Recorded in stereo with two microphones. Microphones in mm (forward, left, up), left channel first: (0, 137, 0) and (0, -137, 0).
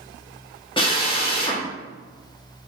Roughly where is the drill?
Centre.